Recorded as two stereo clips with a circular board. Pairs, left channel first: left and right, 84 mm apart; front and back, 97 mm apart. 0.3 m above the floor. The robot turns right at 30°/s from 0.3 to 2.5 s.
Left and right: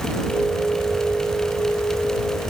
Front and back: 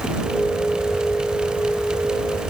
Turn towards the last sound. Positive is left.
No sound to turn to.